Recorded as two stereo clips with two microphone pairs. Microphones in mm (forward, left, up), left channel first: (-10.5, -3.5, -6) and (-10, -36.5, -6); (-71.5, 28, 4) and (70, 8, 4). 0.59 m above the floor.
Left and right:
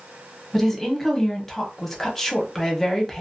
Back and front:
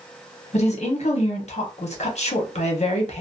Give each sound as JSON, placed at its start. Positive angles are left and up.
{"t": 0.5, "sound": "a woman speaking", "azimuth_deg": 170, "distance_m": 0.8}